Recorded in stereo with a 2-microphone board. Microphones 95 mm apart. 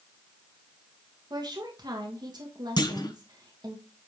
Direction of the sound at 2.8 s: 45° left (ahead or behind).